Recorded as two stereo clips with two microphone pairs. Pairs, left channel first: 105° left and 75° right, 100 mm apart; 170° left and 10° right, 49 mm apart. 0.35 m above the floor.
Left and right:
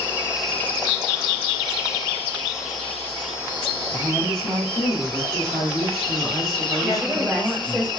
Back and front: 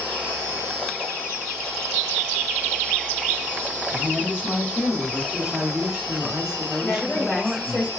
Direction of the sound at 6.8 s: 160° left.